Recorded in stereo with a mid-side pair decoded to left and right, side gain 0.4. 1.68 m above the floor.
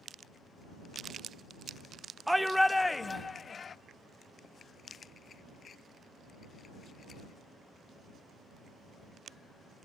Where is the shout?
5° right; by 3.8 s 50° left.